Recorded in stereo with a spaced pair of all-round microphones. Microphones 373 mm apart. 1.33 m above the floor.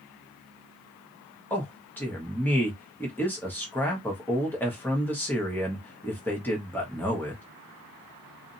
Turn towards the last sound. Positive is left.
turn(degrees=5)  # may be behind; listen again after turning